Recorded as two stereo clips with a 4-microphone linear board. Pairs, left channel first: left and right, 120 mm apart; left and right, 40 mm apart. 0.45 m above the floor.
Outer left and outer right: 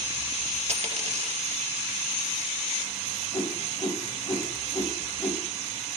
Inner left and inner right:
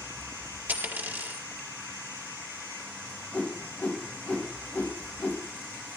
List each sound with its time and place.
0.7 s a dropped coin: 60° right (ahead or behind), 4.5 m
3.3 s a whoosh: 35° left (ahead or behind), 3.5 m